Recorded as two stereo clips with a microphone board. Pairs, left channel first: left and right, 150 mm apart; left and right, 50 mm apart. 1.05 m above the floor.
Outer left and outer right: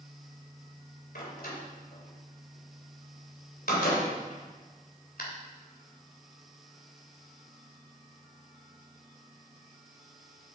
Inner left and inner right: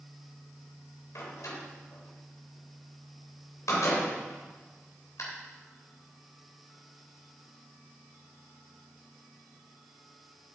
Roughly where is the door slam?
Left.